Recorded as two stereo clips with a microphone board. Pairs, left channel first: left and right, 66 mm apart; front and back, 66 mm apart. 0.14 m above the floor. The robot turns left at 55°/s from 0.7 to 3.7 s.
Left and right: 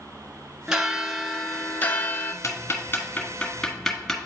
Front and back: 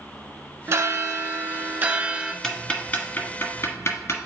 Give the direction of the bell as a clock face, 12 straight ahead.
5 o'clock.